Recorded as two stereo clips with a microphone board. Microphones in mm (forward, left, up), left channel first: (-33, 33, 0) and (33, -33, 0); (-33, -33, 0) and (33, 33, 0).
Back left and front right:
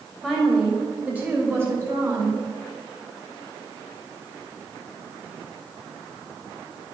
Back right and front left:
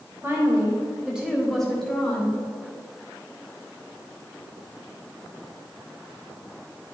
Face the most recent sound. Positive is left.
turn(degrees=-75)